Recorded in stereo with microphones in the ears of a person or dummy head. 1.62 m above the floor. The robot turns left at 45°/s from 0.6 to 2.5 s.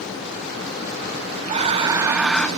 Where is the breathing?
140° right, 1.1 m; by 2.5 s 175° left, 1.1 m.